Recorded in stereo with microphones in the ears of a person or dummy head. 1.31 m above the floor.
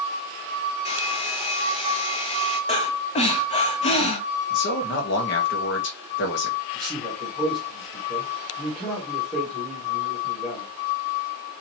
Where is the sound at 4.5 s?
60° left (ahead or behind), 1.3 m.